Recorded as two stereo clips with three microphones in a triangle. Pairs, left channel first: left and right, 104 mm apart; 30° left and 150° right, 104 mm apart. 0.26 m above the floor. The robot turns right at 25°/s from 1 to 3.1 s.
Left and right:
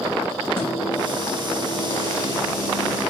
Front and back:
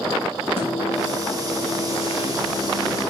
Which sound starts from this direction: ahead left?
A microwave, at 0.6 s.